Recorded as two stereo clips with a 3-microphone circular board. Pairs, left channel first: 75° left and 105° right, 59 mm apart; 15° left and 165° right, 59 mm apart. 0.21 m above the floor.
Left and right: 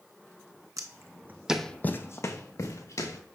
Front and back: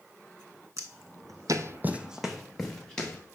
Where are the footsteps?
130° right, 1.0 m; by 3.2 s 90° left, 1.8 m.